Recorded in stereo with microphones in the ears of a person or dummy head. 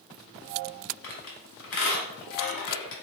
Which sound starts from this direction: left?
A squeak, at 1.0 s.